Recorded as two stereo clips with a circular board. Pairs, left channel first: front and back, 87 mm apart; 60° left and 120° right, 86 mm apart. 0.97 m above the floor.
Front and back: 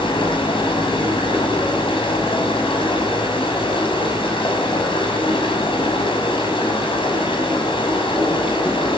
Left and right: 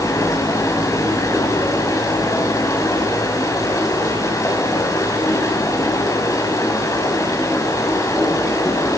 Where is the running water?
10° left, 6.5 m.